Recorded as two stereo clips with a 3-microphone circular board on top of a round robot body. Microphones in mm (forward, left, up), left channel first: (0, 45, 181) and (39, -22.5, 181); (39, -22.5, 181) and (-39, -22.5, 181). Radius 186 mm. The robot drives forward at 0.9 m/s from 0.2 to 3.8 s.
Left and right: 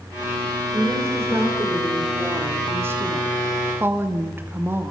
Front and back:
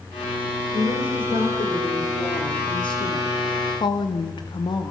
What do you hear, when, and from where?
0.7 s a woman speaking: straight ahead, 4.5 m